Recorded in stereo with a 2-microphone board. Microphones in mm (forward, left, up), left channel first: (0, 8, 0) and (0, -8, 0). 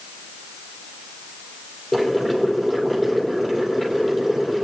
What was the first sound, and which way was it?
Boiling, 15° left (ahead or behind).